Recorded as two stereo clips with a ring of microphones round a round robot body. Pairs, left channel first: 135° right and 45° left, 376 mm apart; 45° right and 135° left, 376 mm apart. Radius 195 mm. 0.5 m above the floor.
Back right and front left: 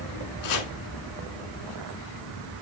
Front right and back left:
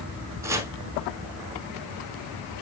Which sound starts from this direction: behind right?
Chopping, at 0.4 s.